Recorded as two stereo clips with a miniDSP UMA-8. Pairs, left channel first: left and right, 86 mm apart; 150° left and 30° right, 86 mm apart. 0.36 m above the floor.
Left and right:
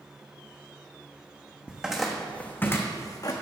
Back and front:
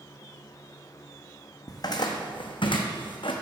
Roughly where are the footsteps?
Behind.